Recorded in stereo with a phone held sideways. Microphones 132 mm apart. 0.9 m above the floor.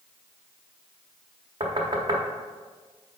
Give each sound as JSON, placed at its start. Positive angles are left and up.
{"t": 1.6, "sound": "knocking", "side_deg": -40, "distance_m": 1.0}